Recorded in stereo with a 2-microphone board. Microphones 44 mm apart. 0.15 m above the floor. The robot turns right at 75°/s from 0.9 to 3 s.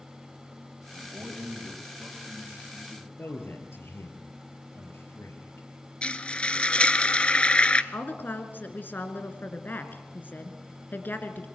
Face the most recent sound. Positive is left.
turn(degrees=45)  # may be behind; listen again after turning